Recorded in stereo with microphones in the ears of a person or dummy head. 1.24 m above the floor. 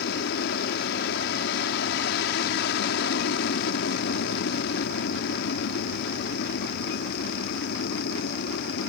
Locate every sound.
0.0 s an aircraft: 60° left (ahead or behind)